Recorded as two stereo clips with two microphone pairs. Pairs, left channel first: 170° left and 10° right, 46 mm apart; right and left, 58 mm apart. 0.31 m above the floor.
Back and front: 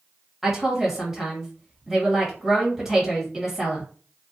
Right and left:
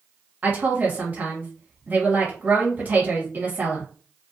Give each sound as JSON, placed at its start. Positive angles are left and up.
{"t": 0.4, "sound": "a woman speaking", "azimuth_deg": 60, "distance_m": 1.7}